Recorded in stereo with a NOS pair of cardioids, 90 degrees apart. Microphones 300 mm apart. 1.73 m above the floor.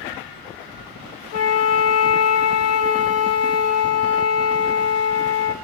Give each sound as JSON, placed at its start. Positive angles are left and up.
{"t": 1.3, "sound": "a flute", "azimuth_deg": 55, "distance_m": 1.3}